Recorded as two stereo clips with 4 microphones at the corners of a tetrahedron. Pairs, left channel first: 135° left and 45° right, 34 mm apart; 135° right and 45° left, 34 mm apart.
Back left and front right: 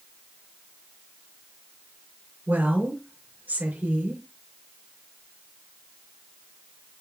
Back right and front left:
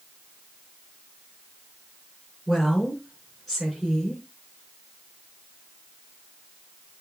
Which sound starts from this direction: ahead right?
A woman speaking, at 2.5 s.